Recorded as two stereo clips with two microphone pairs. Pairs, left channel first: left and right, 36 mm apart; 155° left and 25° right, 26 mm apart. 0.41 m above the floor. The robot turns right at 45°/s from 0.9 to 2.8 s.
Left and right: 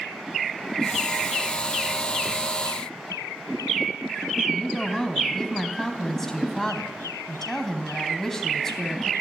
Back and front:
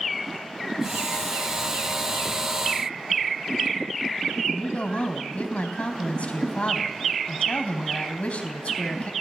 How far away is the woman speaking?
About 3.5 m.